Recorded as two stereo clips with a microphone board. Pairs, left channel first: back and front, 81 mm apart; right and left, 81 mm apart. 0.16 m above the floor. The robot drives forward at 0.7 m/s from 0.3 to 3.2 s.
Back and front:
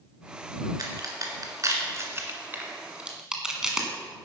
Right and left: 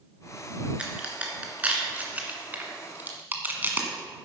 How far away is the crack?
About 2.5 m.